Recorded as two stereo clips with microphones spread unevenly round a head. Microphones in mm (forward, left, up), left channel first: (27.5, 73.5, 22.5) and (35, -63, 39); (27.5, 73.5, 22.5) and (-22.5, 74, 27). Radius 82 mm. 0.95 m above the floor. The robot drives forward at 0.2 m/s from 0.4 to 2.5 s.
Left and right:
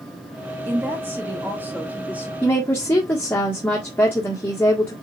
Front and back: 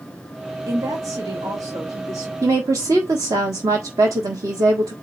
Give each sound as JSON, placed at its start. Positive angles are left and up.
{"t": 0.7, "sound": "a woman speaking", "azimuth_deg": -165, "distance_m": 1.3}
{"t": 2.4, "sound": "a woman speaking", "azimuth_deg": 170, "distance_m": 1.4}